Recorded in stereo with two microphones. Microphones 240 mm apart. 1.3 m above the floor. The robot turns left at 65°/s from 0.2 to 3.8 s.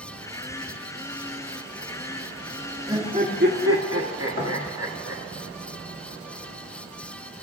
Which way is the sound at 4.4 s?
60° left (ahead or behind).